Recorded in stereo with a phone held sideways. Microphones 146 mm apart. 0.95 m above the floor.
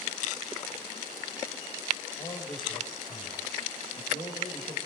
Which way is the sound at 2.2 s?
30° left (ahead or behind).